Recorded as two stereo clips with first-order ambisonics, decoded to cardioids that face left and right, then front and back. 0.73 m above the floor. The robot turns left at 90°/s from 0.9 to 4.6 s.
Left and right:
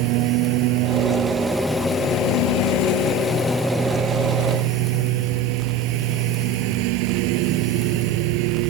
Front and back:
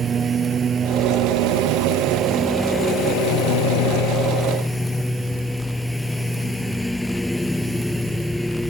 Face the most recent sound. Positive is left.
turn(degrees=-85)